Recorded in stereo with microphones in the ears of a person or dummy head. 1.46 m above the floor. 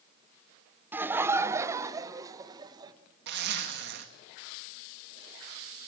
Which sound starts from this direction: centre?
Laughter, at 0.9 s.